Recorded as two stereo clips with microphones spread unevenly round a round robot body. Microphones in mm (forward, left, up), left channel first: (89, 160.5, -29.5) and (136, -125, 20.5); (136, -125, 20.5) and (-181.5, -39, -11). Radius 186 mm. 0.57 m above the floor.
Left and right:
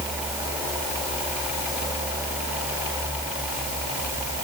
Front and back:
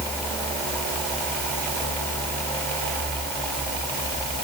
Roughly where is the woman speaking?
No woman speaking in this recording.